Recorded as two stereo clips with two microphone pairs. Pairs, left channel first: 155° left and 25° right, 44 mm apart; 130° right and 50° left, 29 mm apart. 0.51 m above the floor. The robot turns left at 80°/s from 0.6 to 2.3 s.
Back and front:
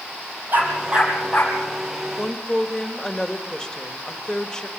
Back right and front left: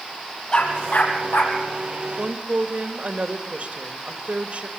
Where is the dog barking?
65° right, 4 m; by 1.6 s 140° right, 4 m.